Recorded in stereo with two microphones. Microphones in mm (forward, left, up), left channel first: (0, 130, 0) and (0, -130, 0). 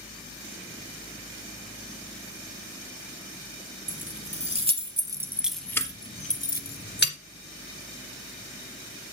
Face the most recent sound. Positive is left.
turn(degrees=45)  # may be behind; listen again after turning